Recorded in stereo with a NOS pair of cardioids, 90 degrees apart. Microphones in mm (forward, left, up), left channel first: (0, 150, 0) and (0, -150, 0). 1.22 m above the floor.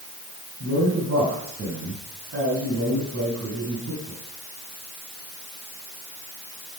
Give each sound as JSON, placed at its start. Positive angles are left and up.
{"t": 0.6, "sound": "a man speaking", "azimuth_deg": -50, "distance_m": 8.5}